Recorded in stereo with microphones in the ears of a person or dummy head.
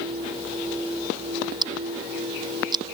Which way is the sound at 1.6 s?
20° right (ahead or behind).